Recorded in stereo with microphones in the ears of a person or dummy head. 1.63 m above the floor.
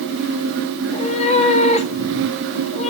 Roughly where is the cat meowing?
Left.